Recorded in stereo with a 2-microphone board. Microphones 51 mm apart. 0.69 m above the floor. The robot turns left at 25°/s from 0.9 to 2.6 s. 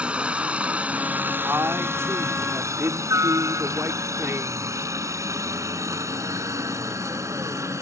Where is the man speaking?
55° right (ahead or behind); by 4.9 s 60° right (ahead or behind).